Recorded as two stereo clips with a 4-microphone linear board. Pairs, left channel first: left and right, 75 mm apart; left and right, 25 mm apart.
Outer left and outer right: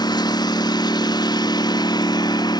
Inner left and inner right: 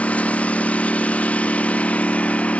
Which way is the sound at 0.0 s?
65° left (ahead or behind).